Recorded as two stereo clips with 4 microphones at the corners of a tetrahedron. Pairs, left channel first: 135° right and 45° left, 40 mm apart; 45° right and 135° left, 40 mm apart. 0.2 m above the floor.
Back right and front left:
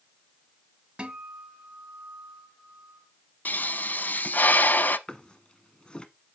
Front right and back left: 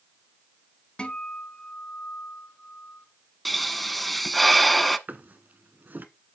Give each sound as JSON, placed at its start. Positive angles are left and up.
{"t": 1.0, "sound": "a guitar", "azimuth_deg": 5, "distance_m": 1.4}
{"t": 3.5, "sound": "a pop", "azimuth_deg": -130, "distance_m": 0.6}
{"t": 5.1, "sound": "a drawer", "azimuth_deg": 165, "distance_m": 0.9}